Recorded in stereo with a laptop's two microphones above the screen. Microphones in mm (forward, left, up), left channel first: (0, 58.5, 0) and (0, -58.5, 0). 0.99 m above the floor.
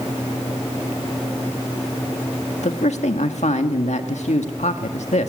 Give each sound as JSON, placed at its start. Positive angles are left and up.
{"t": 2.6, "sound": "a man speaking", "side_deg": 75, "distance_m": 1.8}